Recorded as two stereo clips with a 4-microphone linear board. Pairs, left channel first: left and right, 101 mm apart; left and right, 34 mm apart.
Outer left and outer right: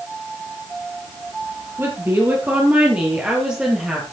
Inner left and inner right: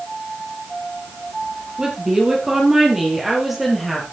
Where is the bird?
I don't hear a bird.